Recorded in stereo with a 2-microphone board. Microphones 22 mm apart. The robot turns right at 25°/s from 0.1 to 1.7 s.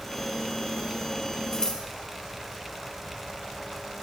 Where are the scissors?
25° left (ahead or behind), 3 m; by 1.8 s 30° left (ahead or behind), 3 m.